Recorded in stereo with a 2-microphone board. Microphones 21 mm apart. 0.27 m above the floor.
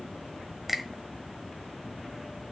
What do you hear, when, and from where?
0.7 s a finger snap: centre (ahead or behind), 1.4 m